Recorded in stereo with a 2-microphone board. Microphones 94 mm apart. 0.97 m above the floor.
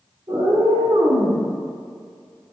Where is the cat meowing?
55° right (ahead or behind), 1.8 m; by 1.4 s 80° right, 1.6 m.